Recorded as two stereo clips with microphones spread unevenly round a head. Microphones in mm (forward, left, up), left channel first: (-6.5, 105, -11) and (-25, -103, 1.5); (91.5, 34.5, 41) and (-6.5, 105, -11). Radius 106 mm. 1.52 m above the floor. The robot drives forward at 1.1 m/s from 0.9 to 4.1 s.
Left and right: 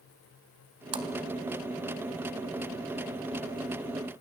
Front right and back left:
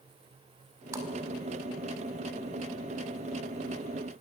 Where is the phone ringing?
No phone ringing in this recording.